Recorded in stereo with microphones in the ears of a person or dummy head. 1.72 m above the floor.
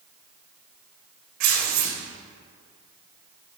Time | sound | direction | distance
1.4 | tearing paper | 50° right (ahead or behind) | 1.3 m